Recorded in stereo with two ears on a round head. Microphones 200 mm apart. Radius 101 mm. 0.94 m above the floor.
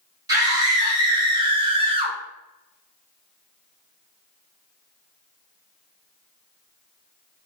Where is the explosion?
I don't hear an explosion.